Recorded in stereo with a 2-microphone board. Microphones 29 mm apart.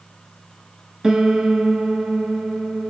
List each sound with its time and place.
1.0 s a piano: 20° right (ahead or behind), 0.6 m